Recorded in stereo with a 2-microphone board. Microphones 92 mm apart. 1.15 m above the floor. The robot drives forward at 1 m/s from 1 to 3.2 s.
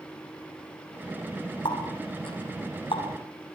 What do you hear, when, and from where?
1.6 s a running tap: 60° left (ahead or behind), 7.5 m; by 3.1 s 70° left (ahead or behind), 7 m